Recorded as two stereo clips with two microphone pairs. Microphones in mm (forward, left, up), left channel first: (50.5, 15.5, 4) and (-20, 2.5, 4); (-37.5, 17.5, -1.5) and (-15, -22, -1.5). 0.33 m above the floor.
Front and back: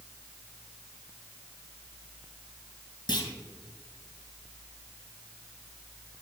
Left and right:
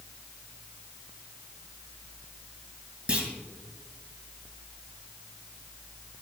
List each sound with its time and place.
3.1 s a clunk: straight ahead, 2.0 m